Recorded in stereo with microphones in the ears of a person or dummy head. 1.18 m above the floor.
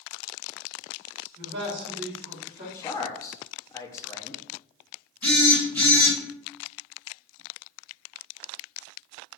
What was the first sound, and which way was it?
A man speaking, 35° right (ahead or behind).